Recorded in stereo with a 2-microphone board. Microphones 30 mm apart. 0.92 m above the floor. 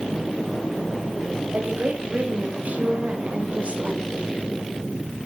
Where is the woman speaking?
70° right (ahead or behind), 6 m; by 4.1 s 35° right (ahead or behind), 4 m.